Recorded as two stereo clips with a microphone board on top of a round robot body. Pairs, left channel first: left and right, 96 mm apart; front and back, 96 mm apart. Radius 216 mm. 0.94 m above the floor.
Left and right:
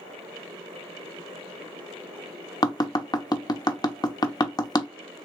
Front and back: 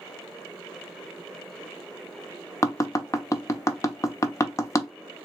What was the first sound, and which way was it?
Tapping, 55° left.